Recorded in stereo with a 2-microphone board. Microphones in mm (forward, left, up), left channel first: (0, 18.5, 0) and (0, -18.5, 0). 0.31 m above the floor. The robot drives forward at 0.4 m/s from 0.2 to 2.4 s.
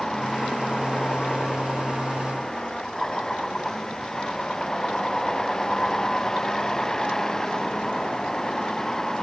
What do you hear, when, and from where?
0.0 s a vehicle: 15° left (ahead or behind)